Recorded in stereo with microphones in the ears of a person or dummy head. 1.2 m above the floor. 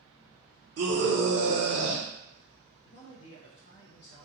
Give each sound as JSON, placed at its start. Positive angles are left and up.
{"t": 0.8, "sound": "a scream", "side_deg": -60, "distance_m": 0.6}
{"t": 2.9, "sound": "a man speaking", "side_deg": 55, "distance_m": 0.5}